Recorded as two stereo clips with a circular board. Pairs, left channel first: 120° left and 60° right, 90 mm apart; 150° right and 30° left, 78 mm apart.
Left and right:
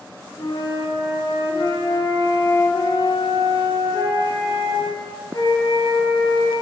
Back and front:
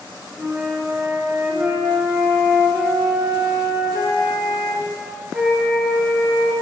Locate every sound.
0.4 s a flute: 105° left, 1.3 m